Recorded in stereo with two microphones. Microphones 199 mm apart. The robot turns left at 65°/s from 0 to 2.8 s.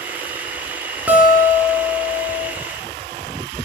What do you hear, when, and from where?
1.1 s a guitar: 165° right, 0.6 m; by 2.5 s 100° left, 0.6 m